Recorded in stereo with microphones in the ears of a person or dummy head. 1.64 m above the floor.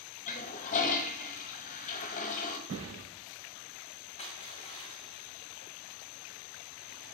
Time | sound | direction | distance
0.3 | a toilet flushing | 45° left (ahead or behind) | 1.2 m
2.7 | a thud | 75° right (ahead or behind) | 4.5 m
4.2 | crushing | 40° left (ahead or behind) | 1.8 m